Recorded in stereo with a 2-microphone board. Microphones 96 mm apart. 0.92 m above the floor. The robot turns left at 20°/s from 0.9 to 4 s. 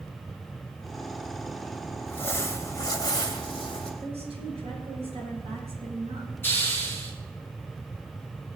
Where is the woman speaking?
75° right (ahead or behind), 9.5 m.